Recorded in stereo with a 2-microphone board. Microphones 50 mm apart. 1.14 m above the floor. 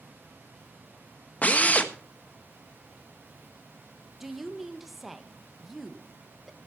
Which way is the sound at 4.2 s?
5° right (ahead or behind).